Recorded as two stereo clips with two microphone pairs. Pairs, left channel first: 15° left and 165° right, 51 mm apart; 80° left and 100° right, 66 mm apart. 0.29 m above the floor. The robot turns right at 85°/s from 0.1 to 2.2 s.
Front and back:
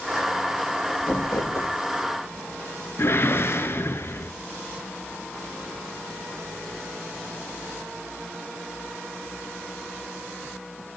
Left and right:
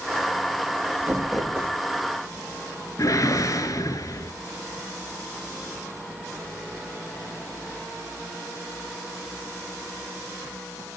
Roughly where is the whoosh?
Ahead left.